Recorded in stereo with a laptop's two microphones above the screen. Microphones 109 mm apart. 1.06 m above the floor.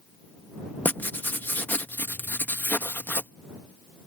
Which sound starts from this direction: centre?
Writing, at 0.8 s.